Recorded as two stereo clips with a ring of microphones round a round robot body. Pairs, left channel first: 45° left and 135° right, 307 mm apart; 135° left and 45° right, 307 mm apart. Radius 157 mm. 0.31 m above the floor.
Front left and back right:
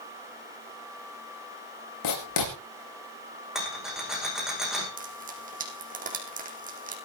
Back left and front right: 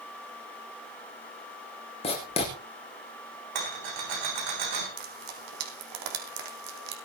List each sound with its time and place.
2.0 s writing: 65° left, 6 m
3.5 s a rattle: 45° right, 9 m
5.0 s frying: 70° right, 4 m